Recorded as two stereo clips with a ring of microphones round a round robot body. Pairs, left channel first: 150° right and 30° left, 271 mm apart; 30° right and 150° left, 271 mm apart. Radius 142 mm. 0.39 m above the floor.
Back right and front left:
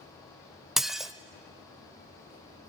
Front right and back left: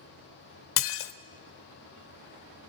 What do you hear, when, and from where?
0.8 s dishes clattering: 60° right, 1.1 m